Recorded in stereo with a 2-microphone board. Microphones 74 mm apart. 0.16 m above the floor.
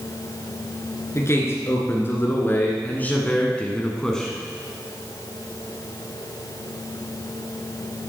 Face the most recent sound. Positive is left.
turn(degrees=5)  # may be behind; listen again after turning